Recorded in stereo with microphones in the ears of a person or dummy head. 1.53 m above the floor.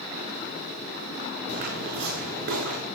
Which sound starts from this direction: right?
Footsteps, at 1.5 s.